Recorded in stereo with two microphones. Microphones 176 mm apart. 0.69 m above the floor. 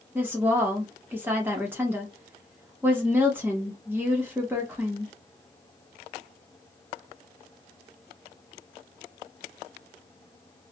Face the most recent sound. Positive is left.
turn(degrees=-10)  # may be behind; listen again after turning